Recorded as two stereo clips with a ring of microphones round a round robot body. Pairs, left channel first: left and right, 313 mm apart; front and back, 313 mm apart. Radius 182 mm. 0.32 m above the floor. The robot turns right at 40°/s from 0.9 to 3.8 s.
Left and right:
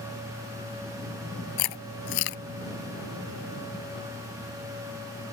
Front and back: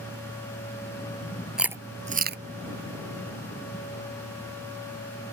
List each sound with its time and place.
1.6 s chewing: 90° left; by 2.4 s 125° left